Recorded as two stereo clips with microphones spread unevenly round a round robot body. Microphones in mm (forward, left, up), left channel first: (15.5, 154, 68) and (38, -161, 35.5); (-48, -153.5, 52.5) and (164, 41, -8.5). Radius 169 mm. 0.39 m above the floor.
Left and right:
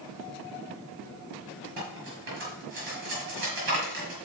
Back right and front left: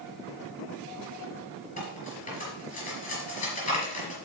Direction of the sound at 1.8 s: 75° right.